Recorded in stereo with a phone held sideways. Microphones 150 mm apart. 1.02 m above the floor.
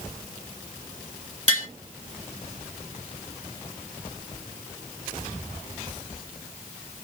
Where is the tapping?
50° right (ahead or behind), 1.9 m.